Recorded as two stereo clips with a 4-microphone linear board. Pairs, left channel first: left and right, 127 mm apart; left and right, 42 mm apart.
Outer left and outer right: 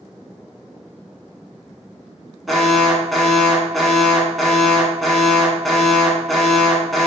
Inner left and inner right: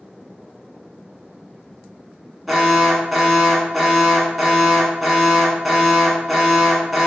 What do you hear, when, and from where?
2.5 s an alarm: centre (ahead or behind), 0.8 m